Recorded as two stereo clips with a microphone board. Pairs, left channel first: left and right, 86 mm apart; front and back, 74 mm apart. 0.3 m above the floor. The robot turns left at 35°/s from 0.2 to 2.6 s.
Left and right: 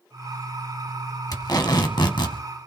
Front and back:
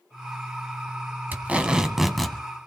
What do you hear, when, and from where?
1.3 s tape being pulled: 120° left, 1.3 m; by 2.4 s 85° left, 1.3 m